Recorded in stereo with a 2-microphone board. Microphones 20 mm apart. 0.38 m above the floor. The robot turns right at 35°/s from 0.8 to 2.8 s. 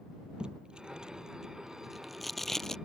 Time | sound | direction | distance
0.4 | tape being pulled | 45° right (ahead or behind) | ?